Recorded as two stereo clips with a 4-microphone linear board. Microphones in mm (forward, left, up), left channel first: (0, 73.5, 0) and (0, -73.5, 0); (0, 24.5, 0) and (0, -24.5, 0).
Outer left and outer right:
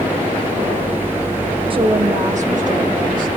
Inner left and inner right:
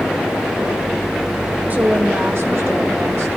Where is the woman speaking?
35° right (ahead or behind), 1.1 m; by 3.3 s 65° right (ahead or behind), 2.5 m.